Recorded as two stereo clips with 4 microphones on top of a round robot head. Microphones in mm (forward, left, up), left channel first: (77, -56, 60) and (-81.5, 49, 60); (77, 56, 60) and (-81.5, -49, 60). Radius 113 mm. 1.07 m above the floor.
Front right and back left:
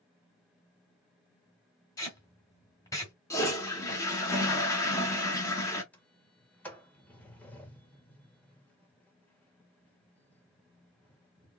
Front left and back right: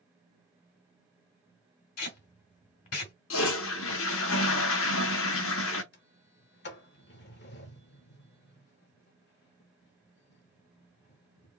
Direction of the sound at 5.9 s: 50° left.